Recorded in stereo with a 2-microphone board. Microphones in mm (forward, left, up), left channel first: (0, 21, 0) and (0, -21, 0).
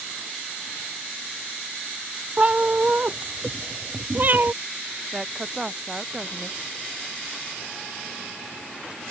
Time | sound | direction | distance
2.4 | a cat meowing | 30° right (ahead or behind) | ?
5.1 | a woman speaking | 10° right (ahead or behind) | ?